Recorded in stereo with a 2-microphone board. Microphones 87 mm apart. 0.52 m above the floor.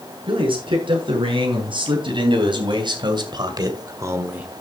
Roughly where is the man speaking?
Right.